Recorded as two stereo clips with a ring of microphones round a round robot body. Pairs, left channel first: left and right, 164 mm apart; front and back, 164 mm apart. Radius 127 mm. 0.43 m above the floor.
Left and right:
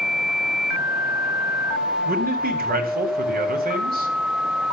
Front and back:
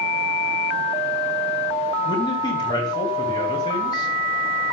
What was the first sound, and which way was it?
A man speaking, 70° right.